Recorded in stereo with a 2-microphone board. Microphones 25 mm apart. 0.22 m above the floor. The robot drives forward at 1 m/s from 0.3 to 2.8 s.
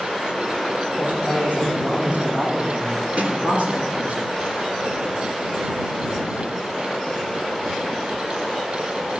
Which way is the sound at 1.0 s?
60° right (ahead or behind).